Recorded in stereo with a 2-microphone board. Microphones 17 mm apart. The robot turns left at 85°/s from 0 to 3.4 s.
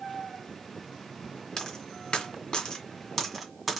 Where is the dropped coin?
20° left (ahead or behind), 1.7 m; by 3.8 s centre (ahead or behind), 1.7 m.